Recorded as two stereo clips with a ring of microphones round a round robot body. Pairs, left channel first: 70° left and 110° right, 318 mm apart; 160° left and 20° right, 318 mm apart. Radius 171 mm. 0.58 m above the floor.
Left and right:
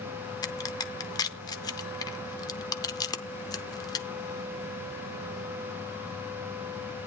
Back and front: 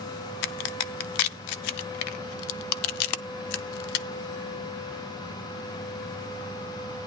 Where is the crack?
145° left, 0.6 m.